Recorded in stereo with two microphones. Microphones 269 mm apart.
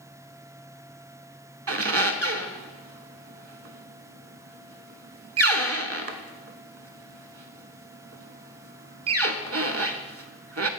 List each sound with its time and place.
1.7 s a squeak: 60° right (ahead or behind), 0.5 m